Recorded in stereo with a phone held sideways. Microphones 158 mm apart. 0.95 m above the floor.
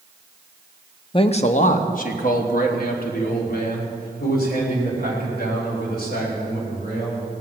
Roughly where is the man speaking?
Left.